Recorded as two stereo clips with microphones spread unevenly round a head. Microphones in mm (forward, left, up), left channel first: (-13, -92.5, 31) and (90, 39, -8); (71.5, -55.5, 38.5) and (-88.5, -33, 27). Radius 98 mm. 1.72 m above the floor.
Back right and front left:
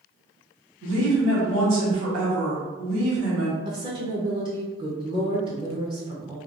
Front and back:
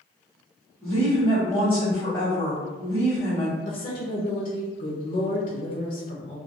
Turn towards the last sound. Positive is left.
turn(degrees=-15)